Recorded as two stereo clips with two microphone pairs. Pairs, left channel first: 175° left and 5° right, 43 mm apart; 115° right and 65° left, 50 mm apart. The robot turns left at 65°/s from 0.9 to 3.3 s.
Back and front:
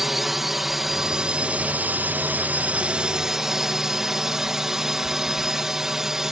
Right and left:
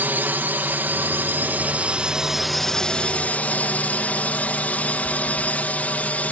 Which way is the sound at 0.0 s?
80° left.